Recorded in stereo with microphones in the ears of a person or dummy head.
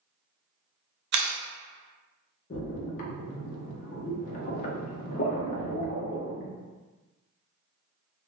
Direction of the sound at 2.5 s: 50° left (ahead or behind).